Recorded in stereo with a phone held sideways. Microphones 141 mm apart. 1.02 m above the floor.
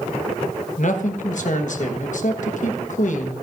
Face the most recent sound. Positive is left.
turn(degrees=65)  # may be behind; listen again after turning